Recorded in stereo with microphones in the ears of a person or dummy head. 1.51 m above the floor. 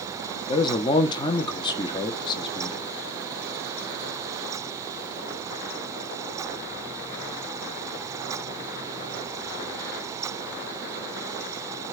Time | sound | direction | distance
0.5 | a man speaking | 25° left (ahead or behind) | 1.3 m